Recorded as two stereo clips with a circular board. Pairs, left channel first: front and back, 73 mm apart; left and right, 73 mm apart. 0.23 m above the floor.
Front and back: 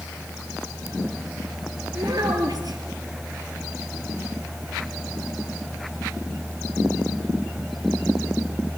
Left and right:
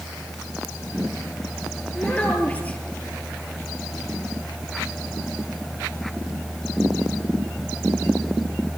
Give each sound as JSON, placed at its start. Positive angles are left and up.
{"t": 1.9, "sound": "a child speaking", "azimuth_deg": 160, "distance_m": 4.0}